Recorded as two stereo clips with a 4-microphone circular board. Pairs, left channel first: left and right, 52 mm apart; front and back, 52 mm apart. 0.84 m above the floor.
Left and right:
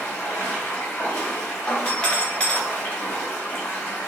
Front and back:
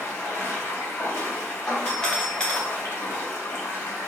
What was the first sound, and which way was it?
Running water, 45° left.